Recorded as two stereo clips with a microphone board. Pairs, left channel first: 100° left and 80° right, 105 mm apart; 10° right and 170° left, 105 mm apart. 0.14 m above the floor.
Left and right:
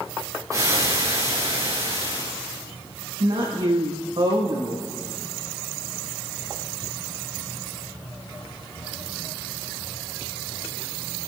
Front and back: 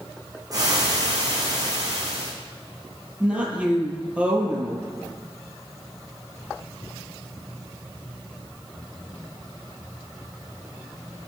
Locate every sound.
0.5 s frying: 135° right, 4 m
3.2 s a woman speaking: 115° right, 5 m